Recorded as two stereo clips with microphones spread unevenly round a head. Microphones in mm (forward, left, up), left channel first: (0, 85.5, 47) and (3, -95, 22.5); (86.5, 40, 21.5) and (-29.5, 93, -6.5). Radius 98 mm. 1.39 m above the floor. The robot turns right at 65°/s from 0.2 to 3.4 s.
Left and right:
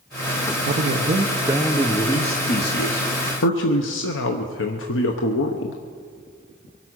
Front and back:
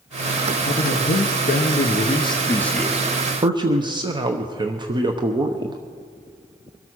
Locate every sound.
0.6 s a man speaking: 75° right, 1.0 m; by 5.8 s 105° left, 1.0 m